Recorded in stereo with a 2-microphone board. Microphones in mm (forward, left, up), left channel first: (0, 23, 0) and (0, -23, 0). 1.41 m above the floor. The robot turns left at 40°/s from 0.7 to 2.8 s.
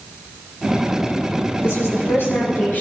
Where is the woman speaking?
85° left, 5.5 m; by 2.8 s 40° left, 5.5 m.